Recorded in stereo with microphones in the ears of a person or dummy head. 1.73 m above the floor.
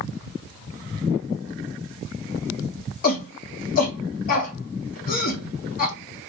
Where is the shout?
55° left (ahead or behind), 1.1 m.